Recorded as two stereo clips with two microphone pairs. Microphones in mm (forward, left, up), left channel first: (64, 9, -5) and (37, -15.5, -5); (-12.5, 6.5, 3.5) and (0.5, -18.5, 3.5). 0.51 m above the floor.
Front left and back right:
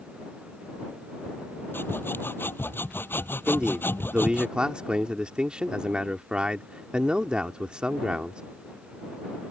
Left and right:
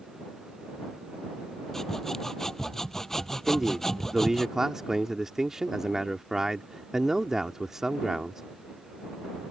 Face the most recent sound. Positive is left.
turn(degrees=-115)